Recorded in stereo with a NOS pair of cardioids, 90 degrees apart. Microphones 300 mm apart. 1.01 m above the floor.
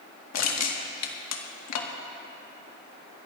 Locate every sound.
0.3 s crushing: 60° left, 1.6 m